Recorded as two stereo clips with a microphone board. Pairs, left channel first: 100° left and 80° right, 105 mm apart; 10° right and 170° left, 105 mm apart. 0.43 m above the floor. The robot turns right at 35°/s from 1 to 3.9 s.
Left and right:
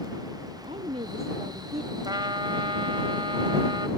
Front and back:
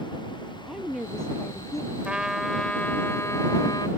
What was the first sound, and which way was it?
A woman speaking, 100° right.